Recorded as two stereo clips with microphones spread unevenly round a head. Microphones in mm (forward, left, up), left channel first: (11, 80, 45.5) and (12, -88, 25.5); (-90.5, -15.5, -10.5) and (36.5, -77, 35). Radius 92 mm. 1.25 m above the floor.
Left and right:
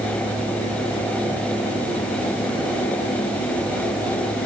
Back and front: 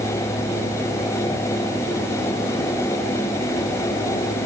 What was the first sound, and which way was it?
Only background noise.